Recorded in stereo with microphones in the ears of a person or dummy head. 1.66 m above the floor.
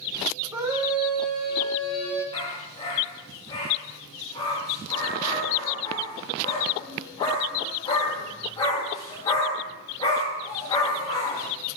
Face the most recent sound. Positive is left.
turn(degrees=20)  # may be behind; listen again after turning